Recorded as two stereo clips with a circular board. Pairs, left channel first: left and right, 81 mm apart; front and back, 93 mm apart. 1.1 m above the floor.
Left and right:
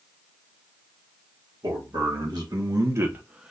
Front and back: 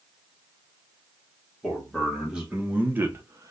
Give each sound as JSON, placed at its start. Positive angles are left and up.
{"t": 1.6, "sound": "a man speaking", "azimuth_deg": -90, "distance_m": 1.3}